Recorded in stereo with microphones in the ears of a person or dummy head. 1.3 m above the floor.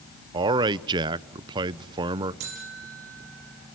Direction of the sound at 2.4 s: 65° right (ahead or behind).